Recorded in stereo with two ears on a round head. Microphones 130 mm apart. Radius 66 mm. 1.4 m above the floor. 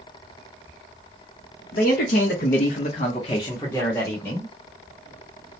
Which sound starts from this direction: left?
A man speaking, at 1.7 s.